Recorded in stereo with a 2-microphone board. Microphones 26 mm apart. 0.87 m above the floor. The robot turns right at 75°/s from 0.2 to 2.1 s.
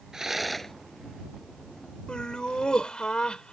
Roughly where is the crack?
No crack in this recording.